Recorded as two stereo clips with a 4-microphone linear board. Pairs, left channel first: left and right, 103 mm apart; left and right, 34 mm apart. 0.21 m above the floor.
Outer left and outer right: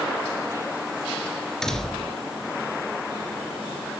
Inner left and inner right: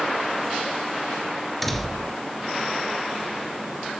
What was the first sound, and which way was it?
A door slam, 5° left (ahead or behind).